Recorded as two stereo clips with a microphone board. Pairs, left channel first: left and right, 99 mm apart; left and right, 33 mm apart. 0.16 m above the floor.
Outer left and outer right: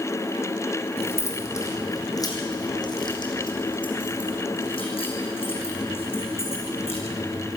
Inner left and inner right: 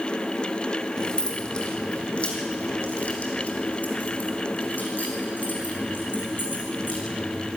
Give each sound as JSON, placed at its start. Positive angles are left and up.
{"t": 1.0, "sound": "keys jangling", "side_deg": 25, "distance_m": 4.0}